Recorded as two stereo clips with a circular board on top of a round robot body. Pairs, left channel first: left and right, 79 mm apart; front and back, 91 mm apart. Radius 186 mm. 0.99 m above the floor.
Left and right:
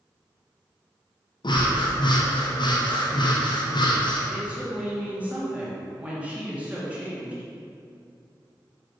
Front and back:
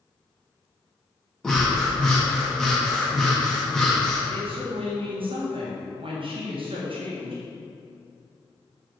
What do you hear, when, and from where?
1.4 s breathing: 85° left, 1.9 m
4.3 s a woman speaking: 165° right, 2.5 m